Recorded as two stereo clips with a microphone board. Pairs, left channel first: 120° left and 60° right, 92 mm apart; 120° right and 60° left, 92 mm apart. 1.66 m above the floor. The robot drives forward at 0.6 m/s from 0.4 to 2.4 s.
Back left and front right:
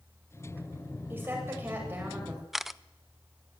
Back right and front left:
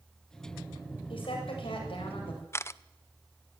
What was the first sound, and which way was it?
A woman speaking, 125° right.